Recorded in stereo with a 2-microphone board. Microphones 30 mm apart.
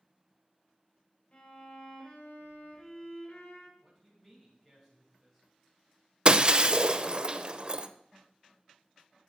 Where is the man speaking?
15° left (ahead or behind), 4 m.